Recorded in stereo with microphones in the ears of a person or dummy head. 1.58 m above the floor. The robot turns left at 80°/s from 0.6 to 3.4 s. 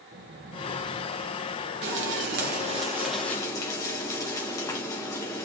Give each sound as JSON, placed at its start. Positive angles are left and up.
{"t": 0.1, "sound": "a squeak", "azimuth_deg": -90, "distance_m": 0.8}
{"t": 1.8, "sound": "frying", "azimuth_deg": -75, "distance_m": 1.1}